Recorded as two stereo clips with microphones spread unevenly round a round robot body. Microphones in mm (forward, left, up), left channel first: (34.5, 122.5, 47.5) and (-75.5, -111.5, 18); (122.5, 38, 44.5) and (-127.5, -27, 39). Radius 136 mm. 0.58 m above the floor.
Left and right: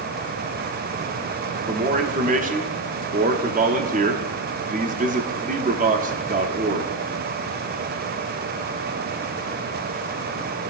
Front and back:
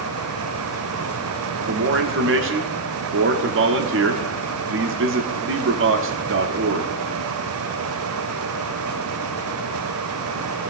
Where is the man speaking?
155° right, 0.9 m.